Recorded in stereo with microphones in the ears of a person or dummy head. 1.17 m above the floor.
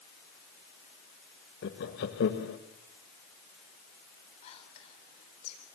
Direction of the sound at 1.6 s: 65° left (ahead or behind).